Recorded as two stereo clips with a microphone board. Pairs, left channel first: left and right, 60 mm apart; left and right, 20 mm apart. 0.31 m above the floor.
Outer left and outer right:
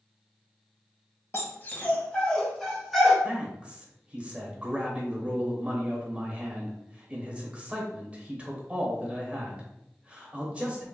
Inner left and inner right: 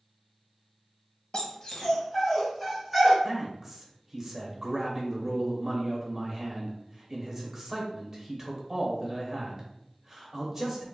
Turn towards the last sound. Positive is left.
turn(degrees=-20)  # may be behind; listen again after turning